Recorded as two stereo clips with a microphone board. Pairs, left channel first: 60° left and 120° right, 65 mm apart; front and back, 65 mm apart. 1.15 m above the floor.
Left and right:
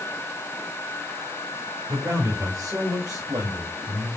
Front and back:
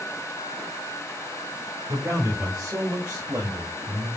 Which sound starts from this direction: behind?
A man speaking, at 1.9 s.